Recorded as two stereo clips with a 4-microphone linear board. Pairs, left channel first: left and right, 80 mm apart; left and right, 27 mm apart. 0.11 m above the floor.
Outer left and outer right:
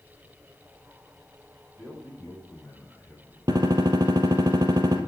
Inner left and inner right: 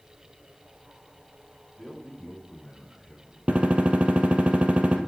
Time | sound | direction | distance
1.8 | a man speaking | 10° left (ahead or behind) | 6 m
3.5 | a gunshot | 55° right (ahead or behind) | 2 m